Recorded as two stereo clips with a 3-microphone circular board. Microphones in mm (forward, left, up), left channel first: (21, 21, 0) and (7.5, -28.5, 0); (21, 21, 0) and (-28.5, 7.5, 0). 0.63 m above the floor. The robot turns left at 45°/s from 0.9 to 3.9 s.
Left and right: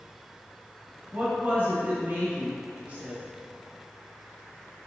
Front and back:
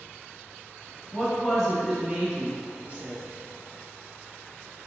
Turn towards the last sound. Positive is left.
turn(degrees=175)